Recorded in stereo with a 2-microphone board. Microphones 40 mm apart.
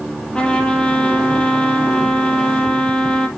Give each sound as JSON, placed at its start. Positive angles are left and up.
{"t": 0.3, "sound": "a trumpet", "side_deg": 25, "distance_m": 2.5}